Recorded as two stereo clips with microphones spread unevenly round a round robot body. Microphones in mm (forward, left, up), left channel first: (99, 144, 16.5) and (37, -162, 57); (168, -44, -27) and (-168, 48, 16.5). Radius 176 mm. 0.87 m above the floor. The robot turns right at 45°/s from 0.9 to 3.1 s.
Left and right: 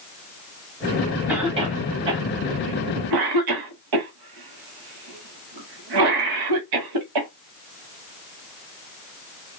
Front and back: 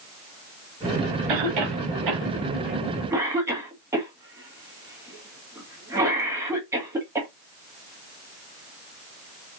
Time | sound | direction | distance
1.3 | a cough | 170° left | 1.3 m